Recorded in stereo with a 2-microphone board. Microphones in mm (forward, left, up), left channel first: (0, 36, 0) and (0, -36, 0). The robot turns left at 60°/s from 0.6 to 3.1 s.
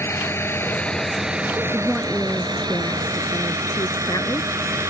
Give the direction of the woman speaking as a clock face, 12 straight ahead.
5 o'clock.